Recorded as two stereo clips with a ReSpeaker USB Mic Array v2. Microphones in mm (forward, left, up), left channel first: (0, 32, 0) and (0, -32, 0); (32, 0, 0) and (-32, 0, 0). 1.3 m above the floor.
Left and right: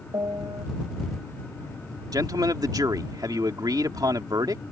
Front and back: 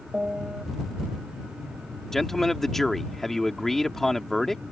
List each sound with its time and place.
0.1 s a piano: 100° right
2.1 s a man speaking: 85° right